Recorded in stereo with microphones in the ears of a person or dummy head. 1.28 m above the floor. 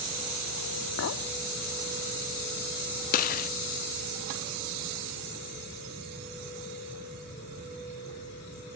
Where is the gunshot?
40° left (ahead or behind), 0.6 m.